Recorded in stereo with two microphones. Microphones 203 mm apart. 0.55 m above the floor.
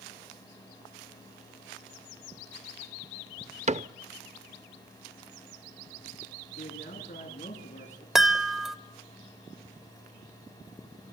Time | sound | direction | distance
3.7 | a cupboard door | 35° right (ahead or behind) | 0.6 m
6.6 | a man speaking | 35° left (ahead or behind) | 7 m
8.2 | a chime | centre (ahead or behind) | 1.4 m